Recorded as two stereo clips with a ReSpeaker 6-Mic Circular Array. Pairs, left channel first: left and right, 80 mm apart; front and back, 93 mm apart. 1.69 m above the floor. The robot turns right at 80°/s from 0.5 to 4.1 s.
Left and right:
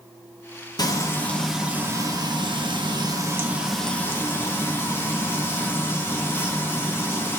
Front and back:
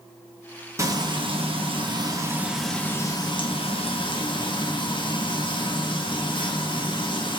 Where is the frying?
125° left, 1.1 m; by 7.4 s 30° left, 1.1 m.